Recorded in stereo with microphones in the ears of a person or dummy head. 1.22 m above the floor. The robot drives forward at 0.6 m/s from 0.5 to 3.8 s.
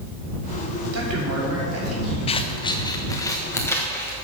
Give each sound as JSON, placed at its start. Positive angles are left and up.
{"t": 0.9, "sound": "a man speaking", "side_deg": -80, "distance_m": 3.5}
{"t": 2.3, "sound": "scissors", "side_deg": 25, "distance_m": 0.5}